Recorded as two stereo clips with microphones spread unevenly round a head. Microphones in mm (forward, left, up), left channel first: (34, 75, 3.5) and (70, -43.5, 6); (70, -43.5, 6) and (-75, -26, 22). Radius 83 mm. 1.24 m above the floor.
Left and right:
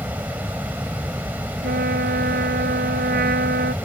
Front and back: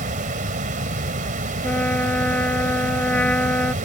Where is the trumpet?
85° right.